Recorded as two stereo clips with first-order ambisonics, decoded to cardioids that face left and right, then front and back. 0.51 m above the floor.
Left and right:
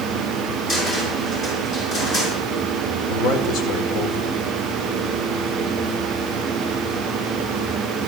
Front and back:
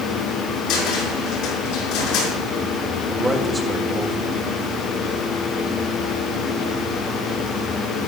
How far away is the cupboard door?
About 5.5 m.